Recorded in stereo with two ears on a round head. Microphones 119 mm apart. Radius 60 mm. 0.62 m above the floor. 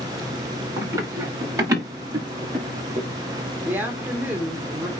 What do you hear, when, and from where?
0.8 s running footsteps: 25° right (ahead or behind), 6.5 m; by 3.1 s 40° right (ahead or behind), 4.5 m
3.6 s a woman speaking: 15° right (ahead or behind), 1.9 m